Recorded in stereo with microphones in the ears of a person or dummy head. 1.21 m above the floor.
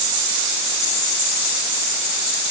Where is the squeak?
I don't hear a squeak.